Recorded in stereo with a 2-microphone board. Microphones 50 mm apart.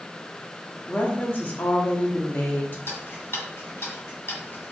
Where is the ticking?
55° left (ahead or behind), 1.4 m.